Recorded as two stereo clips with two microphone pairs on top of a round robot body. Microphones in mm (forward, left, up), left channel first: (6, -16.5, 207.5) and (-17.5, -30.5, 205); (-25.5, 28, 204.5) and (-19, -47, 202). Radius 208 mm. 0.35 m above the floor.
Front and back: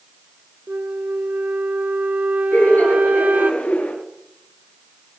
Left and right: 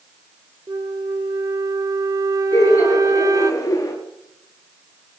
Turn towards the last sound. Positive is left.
turn(degrees=50)